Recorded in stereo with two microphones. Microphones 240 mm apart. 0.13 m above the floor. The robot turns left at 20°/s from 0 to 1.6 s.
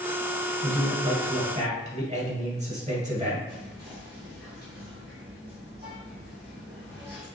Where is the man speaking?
40° right (ahead or behind), 2 m; by 3.4 s 30° right (ahead or behind), 2 m.